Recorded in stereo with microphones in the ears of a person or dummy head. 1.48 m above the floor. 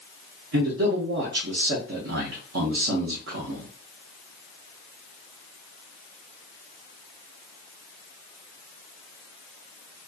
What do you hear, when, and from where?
0.5 s a man speaking: 65° right (ahead or behind), 0.6 m